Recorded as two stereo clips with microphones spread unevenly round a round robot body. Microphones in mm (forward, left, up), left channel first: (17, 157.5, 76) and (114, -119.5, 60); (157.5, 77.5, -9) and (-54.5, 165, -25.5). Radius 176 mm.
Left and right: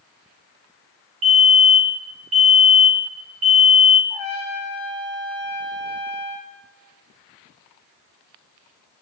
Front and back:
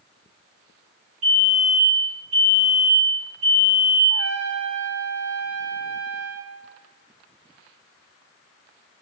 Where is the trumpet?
150° left, 4.5 m.